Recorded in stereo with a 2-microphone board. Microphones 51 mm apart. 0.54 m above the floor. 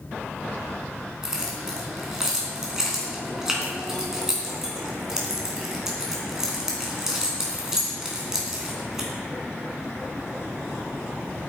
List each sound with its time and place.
1.2 s keys jangling: 10° right (ahead or behind), 3.5 m